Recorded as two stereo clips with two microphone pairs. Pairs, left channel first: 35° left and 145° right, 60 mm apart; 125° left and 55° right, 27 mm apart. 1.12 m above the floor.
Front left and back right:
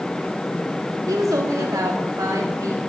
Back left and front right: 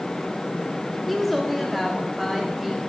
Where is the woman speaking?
145° right, 2 m; by 2.9 s 140° right, 3 m.